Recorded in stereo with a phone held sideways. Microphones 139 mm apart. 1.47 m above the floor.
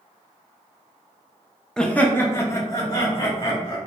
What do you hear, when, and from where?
1.8 s laughter: 5° left (ahead or behind), 0.6 m; by 3.8 s 30° left (ahead or behind), 1.6 m